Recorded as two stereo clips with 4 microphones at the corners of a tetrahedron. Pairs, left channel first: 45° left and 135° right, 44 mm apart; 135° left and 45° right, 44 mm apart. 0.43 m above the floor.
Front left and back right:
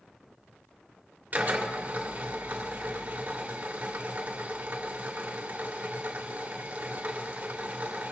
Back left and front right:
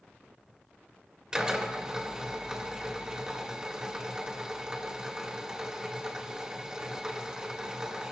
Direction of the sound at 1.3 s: 110° right.